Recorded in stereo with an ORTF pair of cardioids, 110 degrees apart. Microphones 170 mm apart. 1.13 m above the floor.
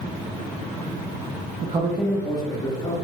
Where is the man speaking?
45° right, 0.6 m; by 3.0 s 35° left, 1.8 m.